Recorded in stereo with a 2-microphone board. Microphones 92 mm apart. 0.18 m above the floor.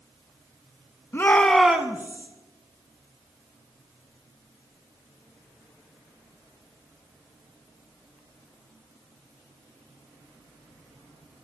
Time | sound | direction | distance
1.1 | a shout | 30° left (ahead or behind) | 1.3 m